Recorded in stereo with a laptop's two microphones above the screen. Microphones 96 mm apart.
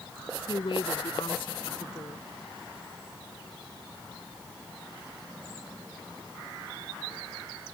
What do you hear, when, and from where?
0.5 s a woman speaking: 60° left (ahead or behind)